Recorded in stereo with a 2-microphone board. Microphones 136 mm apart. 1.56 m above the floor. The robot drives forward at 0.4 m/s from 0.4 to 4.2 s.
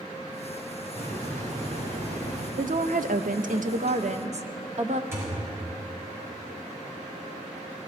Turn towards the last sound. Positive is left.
turn(degrees=-20)  # may be behind; listen again after turning